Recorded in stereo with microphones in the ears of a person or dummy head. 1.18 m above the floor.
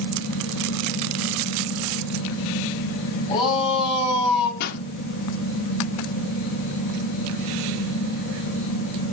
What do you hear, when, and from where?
0.0 s a fan: 55° left (ahead or behind), 2.5 m
3.3 s a shout: 30° left (ahead or behind), 8 m
4.6 s a pop: 60° left (ahead or behind), 1.9 m